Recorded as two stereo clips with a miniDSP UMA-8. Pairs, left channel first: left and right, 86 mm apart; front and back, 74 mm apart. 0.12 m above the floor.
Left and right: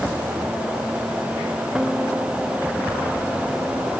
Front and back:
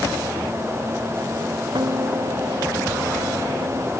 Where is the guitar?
170° right.